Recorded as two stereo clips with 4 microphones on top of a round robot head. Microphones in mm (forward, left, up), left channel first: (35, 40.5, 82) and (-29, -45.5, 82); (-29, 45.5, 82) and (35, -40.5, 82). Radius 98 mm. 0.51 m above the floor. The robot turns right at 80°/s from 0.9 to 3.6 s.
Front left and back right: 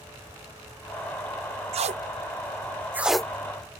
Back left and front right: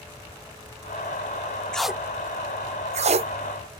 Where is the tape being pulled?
150° right; by 3.3 s 25° right.